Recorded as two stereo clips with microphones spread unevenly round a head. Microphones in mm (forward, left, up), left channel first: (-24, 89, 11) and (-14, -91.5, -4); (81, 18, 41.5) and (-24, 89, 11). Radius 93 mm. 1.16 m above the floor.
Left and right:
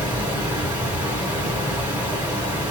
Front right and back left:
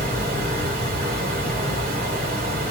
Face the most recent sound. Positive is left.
turn(degrees=-170)